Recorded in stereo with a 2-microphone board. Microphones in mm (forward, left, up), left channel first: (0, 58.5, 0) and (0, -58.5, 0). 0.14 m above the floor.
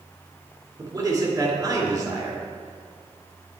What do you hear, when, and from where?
0.8 s a man speaking: 35° right (ahead or behind), 2.5 m